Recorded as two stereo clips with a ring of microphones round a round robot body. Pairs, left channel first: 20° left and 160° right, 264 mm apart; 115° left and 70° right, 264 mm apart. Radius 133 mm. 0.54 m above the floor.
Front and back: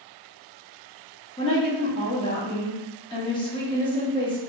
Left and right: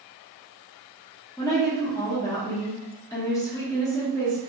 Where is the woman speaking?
55° left, 0.8 m.